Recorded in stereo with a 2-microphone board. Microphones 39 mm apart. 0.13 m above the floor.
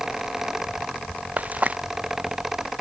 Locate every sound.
1.4 s frying: 45° right (ahead or behind)